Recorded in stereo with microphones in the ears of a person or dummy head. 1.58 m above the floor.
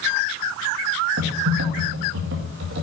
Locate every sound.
1.2 s typing on a keyboard: 70° right (ahead or behind), 1.8 m